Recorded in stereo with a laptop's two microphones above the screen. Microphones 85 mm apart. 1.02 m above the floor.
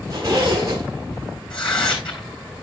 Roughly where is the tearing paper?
Left.